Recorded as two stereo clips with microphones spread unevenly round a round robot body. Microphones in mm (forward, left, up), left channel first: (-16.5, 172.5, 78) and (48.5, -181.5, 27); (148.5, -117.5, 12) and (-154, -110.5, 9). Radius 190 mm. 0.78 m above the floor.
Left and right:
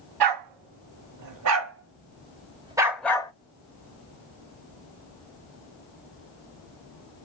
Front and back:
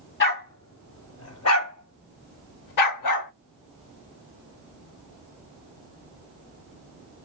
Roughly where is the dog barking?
Ahead right.